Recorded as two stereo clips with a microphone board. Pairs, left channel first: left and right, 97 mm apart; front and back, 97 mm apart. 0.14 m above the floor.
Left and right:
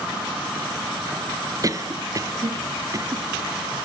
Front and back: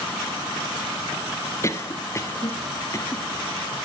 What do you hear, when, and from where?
1.6 s a cough: 50° right, 1.8 m